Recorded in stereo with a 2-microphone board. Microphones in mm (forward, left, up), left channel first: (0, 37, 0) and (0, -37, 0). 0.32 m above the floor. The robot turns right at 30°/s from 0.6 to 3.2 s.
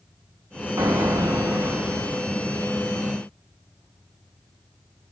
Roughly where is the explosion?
Ahead right.